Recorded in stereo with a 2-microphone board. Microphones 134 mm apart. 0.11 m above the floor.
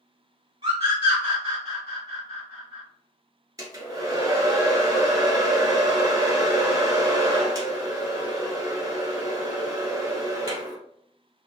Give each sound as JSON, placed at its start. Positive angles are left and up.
{"t": 0.6, "sound": "a scream", "side_deg": -40, "distance_m": 1.4}
{"t": 3.6, "sound": "a hair dryer", "side_deg": -25, "distance_m": 1.2}